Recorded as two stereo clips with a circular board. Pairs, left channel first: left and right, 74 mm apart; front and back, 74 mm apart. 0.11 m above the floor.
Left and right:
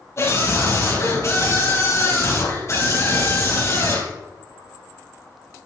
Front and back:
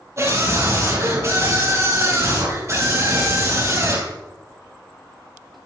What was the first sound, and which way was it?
A scream, 135° left.